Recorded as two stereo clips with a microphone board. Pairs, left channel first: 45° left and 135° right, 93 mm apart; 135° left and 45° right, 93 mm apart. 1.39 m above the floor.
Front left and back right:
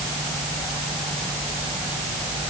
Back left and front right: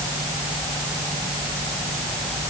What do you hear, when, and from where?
Only background noise.